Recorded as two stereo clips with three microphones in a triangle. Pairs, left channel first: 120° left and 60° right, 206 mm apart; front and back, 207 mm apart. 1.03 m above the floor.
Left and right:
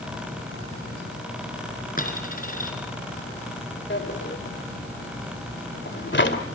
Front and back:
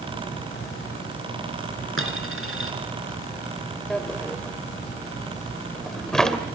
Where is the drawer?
85° left, 2 m.